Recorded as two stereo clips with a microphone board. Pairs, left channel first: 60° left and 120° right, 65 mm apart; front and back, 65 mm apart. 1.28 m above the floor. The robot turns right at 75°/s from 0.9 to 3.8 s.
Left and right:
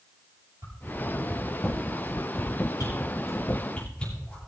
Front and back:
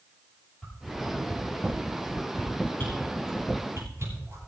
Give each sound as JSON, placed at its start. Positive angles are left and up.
{"t": 0.6, "sound": "a whoosh", "azimuth_deg": -85, "distance_m": 8.0}